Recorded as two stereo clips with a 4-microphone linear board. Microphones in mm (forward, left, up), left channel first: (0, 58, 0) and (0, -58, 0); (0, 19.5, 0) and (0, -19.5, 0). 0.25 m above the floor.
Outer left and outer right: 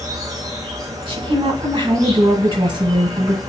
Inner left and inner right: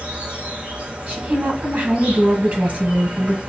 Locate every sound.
0.0 s an insect: 30° right (ahead or behind), 1.0 m
1.1 s a woman speaking: 45° right (ahead or behind), 1.3 m